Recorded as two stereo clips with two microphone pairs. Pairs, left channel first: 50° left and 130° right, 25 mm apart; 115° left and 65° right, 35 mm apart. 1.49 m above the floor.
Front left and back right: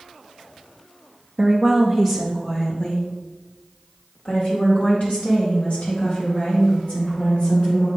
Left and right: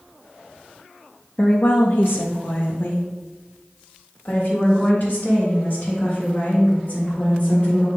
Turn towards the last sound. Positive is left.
turn(degrees=65)